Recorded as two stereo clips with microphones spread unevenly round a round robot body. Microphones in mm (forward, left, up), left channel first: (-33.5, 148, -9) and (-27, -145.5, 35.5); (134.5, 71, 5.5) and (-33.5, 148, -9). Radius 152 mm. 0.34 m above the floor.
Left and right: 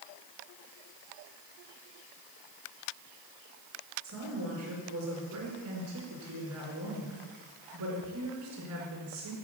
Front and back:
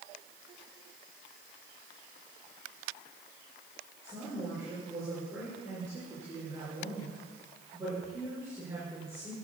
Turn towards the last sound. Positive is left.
turn(degrees=-125)